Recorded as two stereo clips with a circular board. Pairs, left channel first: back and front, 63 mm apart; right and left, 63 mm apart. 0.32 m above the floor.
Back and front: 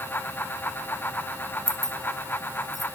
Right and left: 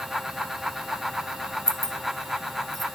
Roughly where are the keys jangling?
Ahead.